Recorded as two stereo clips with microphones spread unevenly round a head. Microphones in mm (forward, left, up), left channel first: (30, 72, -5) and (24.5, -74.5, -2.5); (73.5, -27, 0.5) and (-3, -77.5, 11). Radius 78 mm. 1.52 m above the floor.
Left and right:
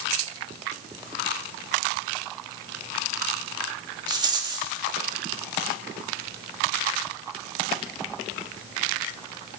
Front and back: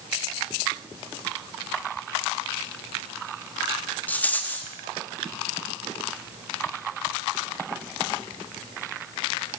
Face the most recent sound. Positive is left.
turn(degrees=-40)